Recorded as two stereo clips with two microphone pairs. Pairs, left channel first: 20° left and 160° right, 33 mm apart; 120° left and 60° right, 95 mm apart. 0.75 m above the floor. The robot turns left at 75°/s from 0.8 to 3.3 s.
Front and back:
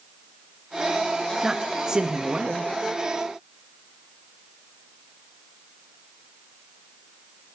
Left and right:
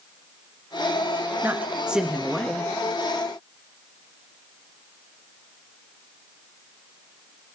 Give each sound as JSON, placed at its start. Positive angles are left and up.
{"t": 1.4, "sound": "a man speaking", "azimuth_deg": -100, "distance_m": 0.9}